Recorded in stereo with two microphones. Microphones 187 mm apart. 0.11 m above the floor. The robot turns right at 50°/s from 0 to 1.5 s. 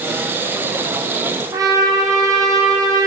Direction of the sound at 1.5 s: 20° right (ahead or behind).